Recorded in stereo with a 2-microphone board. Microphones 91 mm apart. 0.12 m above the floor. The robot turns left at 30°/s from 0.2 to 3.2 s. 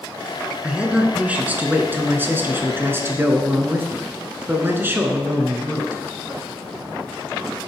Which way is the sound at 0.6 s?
10° right (ahead or behind).